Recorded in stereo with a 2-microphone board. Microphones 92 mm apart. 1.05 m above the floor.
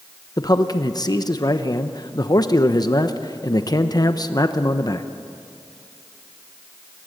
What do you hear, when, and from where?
0.4 s a man speaking: 40° left (ahead or behind), 0.9 m